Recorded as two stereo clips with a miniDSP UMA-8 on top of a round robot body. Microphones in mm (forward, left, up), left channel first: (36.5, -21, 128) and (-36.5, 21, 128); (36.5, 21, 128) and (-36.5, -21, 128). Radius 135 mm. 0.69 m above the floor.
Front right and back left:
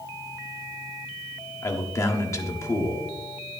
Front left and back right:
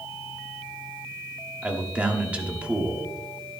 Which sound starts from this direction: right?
A man speaking, at 1.6 s.